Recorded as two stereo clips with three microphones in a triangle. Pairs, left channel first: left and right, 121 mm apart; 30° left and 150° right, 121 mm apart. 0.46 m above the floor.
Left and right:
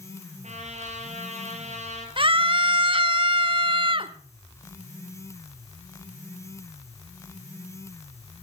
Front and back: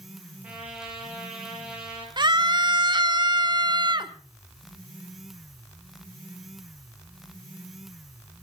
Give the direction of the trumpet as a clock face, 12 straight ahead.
2 o'clock.